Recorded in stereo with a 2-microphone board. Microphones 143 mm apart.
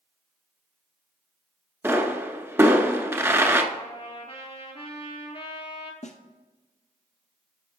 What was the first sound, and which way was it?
A pop, 20° right (ahead or behind).